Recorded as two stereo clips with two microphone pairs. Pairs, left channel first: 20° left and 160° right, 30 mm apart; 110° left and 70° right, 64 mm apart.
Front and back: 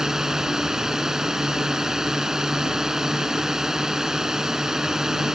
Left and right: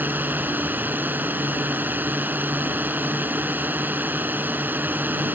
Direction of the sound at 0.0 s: 105° right.